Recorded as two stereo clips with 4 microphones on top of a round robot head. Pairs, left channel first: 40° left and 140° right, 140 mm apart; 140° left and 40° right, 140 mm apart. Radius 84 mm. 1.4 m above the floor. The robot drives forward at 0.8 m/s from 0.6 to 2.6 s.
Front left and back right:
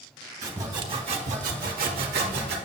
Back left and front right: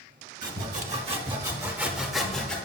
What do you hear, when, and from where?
0.4 s sawing: 70° right, 1.1 m; by 2.5 s 140° right, 1.6 m